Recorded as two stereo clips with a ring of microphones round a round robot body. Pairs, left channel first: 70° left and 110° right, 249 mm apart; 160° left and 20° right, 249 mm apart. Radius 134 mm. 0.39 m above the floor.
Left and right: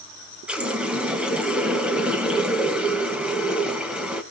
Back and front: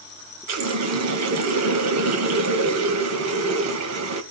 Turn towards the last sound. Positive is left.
turn(degrees=-25)